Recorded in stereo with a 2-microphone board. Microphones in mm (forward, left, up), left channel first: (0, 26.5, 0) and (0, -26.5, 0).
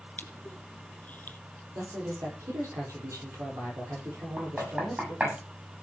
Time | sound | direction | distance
0.2 | crushing | 30° left (ahead or behind) | 1.3 m
1.8 | a man speaking | 70° right (ahead or behind) | 7 m
4.4 | knocking | 25° right (ahead or behind) | 7 m